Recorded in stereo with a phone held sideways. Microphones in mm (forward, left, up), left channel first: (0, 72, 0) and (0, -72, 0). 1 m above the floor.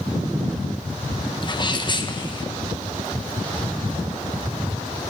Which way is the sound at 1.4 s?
30° left (ahead or behind).